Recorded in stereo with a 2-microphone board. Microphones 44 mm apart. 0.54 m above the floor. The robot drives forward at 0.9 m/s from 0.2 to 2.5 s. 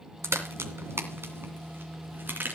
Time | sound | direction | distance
0.2 | a crack | 85° right | 2 m